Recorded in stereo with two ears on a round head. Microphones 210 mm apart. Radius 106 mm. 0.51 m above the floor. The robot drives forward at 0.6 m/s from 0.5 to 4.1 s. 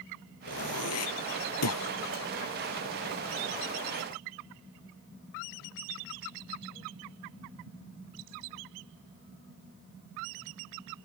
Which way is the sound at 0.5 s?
65° left (ahead or behind).